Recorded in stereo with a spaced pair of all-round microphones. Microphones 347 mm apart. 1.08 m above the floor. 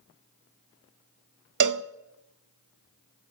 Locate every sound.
1.6 s a cowbell: 60° right (ahead or behind), 0.5 m